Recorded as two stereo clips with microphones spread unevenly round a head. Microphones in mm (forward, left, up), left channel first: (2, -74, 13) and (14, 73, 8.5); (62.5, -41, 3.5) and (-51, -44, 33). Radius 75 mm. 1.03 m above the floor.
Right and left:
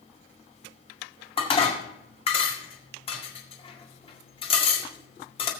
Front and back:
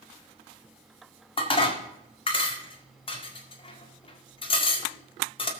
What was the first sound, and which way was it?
Dishes clattering, 40° right.